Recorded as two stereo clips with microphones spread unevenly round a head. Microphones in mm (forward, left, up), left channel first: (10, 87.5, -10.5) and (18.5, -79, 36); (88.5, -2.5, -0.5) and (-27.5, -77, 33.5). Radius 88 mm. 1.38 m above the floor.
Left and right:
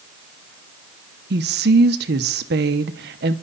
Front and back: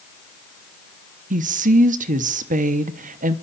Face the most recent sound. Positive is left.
turn(degrees=-120)